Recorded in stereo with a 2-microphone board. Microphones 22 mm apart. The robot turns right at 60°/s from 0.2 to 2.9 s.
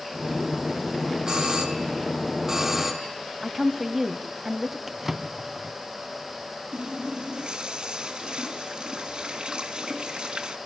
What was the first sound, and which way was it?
A doorbell, 110° right.